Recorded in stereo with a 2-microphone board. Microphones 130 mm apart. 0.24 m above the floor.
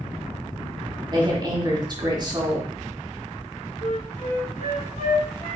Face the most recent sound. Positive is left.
turn(degrees=70)  # may be behind; listen again after turning